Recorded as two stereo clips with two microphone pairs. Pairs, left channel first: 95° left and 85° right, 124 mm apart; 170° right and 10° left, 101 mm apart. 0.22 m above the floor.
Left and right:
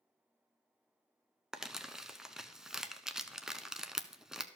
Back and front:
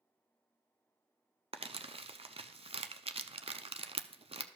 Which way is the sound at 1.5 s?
Straight ahead.